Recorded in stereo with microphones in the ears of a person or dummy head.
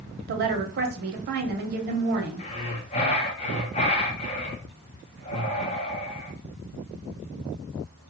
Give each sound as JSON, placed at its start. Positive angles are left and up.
{"t": 0.3, "sound": "a woman speaking", "side_deg": -50, "distance_m": 0.5}
{"t": 2.4, "sound": "breathing", "side_deg": 30, "distance_m": 0.6}